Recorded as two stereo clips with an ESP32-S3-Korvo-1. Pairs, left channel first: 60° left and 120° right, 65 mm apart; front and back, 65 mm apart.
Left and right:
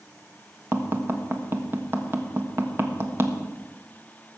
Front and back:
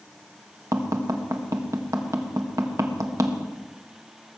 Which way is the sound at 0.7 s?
165° right.